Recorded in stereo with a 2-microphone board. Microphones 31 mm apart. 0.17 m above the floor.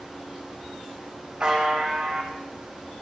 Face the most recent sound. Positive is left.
turn(degrees=-20)  # may be behind; listen again after turning